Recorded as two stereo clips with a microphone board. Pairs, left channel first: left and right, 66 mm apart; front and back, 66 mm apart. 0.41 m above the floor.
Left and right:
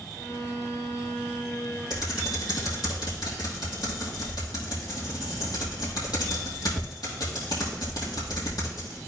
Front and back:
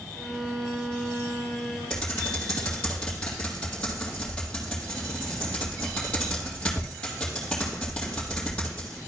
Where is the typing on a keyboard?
75° left, 3 m.